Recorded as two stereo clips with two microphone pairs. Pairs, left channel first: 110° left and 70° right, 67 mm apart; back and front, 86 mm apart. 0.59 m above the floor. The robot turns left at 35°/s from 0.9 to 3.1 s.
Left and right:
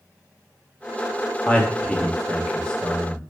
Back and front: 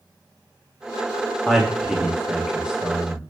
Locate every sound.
1.5 s a man speaking: 105° left, 0.7 m; by 3.2 s 45° left, 0.7 m